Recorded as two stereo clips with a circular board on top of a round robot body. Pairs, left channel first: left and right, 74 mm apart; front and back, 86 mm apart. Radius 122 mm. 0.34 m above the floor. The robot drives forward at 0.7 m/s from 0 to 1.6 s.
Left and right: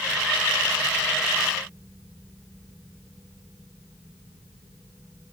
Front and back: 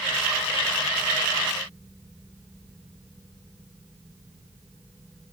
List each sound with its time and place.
Only background noise.